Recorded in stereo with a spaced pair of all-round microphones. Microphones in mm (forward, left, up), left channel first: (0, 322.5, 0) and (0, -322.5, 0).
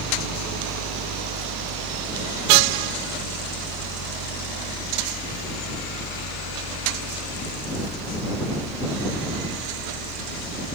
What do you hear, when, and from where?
0.0 s a fan: 75° right (ahead or behind)